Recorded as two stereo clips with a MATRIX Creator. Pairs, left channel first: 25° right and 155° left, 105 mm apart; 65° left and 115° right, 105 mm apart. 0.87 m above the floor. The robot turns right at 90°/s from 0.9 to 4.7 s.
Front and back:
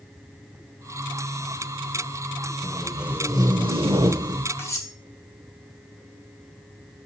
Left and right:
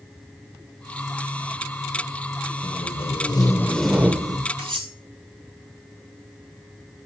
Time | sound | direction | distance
2.6 | tape being pulled | 45° left | 0.8 m
4.6 | cutlery clinking | 90° right | 3 m